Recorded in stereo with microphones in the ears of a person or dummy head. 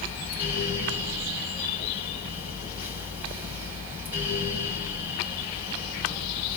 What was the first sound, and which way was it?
A fan, 10° right (ahead or behind).